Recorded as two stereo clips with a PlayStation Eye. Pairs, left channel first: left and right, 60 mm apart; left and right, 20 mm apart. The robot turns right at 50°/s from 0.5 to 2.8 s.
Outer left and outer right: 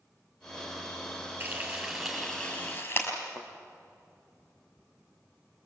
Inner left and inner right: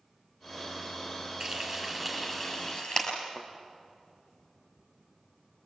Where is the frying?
30° right (ahead or behind), 6 m; by 3.1 s 40° left (ahead or behind), 6 m.